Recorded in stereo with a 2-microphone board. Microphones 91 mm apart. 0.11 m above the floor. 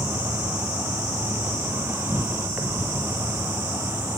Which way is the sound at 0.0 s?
25° right (ahead or behind).